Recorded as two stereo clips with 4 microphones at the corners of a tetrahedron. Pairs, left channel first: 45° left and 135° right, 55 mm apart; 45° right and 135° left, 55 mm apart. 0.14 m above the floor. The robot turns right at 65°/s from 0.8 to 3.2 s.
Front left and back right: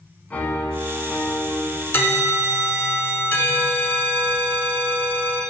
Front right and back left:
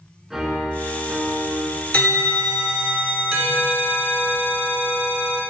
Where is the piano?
55° left, 1.0 m; by 1.8 s 125° left, 1.0 m.